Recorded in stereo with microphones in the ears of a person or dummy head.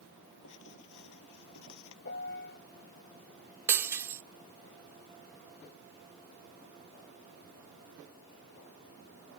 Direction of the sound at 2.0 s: 60° left (ahead or behind).